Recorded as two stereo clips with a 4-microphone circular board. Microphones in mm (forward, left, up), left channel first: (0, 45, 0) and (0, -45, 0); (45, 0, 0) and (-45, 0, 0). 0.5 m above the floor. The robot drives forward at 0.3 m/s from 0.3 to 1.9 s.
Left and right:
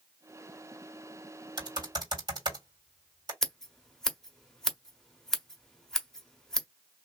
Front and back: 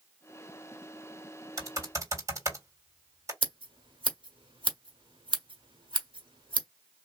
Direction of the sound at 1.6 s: 125° right.